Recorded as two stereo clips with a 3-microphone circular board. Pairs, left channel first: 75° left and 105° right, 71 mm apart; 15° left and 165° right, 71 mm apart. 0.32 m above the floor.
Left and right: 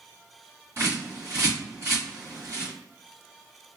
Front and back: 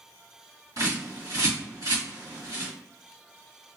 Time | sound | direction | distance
0.8 | a bird | 145° right | 1.7 m